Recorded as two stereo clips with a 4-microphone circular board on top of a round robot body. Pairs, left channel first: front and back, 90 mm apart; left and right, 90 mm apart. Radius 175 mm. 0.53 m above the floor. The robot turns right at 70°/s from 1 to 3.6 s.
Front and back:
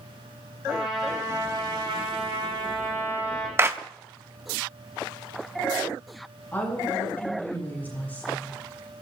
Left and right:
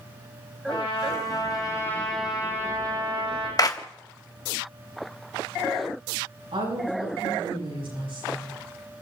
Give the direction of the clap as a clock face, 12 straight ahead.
8 o'clock.